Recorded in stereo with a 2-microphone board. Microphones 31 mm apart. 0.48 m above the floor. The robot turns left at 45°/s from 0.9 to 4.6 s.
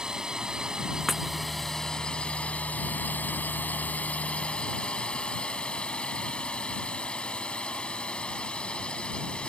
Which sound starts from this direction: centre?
Breaking glass, at 1.1 s.